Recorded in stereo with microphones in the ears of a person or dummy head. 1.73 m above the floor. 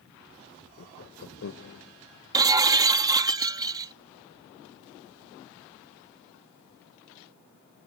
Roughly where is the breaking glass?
Centre.